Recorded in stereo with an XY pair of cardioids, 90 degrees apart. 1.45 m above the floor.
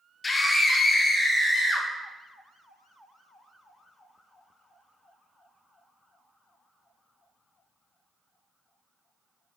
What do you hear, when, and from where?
0.2 s a scream: 35° left, 0.6 m; by 1.9 s 15° left, 1.6 m